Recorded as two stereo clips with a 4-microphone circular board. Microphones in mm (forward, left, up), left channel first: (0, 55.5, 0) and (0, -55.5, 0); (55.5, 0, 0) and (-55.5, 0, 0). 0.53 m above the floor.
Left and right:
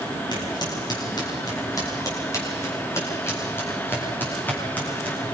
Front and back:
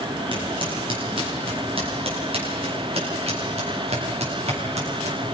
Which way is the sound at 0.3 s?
140° left.